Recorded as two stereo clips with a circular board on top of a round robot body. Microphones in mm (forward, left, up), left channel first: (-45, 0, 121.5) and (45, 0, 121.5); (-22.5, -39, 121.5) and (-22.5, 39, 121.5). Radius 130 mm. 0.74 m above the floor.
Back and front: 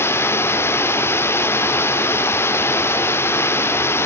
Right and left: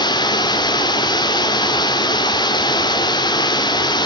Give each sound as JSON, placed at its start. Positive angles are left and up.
{"t": 0.0, "sound": "running water", "azimuth_deg": -115, "distance_m": 2.0}